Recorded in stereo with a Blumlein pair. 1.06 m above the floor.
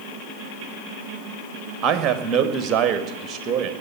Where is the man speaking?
20° right, 1.9 m.